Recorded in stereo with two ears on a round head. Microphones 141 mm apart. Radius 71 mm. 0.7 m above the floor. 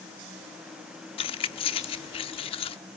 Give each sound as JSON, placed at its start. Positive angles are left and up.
{"t": 1.2, "sound": "keys jangling", "side_deg": 35, "distance_m": 0.8}